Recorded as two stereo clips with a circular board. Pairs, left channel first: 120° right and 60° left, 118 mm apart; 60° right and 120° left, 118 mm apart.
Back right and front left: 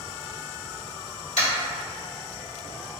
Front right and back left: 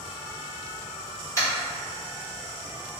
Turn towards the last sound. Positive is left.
turn(degrees=-125)